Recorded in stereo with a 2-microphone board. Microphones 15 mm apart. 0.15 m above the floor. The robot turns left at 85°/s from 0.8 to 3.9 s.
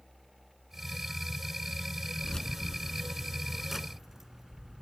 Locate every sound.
2.2 s keys jangling: 40° left (ahead or behind), 0.9 m; by 4.8 s 25° right (ahead or behind), 0.9 m